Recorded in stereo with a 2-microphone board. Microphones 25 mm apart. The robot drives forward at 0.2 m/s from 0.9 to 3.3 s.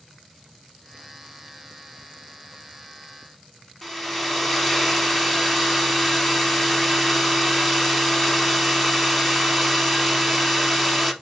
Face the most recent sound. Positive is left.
turn(degrees=5)  # may be behind; listen again after turning